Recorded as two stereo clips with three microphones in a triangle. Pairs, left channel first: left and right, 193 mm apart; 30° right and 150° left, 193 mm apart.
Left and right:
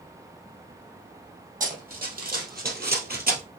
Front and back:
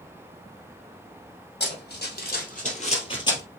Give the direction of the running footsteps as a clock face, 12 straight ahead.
2 o'clock.